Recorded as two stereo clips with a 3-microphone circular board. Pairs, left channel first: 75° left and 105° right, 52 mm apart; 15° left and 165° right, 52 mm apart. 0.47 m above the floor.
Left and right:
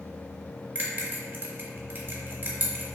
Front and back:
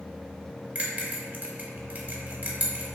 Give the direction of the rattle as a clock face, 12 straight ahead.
I don't hear a rattle.